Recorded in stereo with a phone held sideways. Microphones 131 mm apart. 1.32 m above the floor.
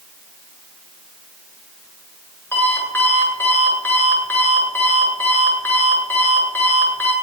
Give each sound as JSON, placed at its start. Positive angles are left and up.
{"t": 2.5, "sound": "an alarm clock", "side_deg": 15, "distance_m": 9.0}